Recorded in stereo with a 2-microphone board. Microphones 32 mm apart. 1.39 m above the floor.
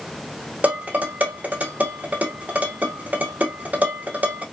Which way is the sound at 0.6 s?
55° right (ahead or behind).